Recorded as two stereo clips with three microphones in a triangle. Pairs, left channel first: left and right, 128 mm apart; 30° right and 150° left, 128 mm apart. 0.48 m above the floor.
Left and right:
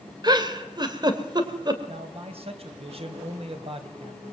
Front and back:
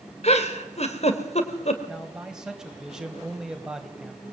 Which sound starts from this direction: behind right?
A man speaking, at 1.9 s.